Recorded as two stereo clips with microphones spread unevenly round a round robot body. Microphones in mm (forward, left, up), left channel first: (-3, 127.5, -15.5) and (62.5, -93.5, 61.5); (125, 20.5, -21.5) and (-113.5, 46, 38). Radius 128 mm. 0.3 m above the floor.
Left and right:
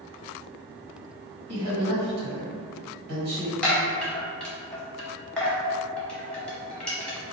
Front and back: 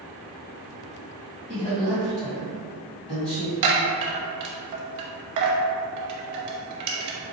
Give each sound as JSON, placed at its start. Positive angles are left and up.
{"t": 1.5, "sound": "a woman speaking", "azimuth_deg": -80, "distance_m": 1.4}
{"t": 3.6, "sound": "a chime", "azimuth_deg": 180, "distance_m": 0.7}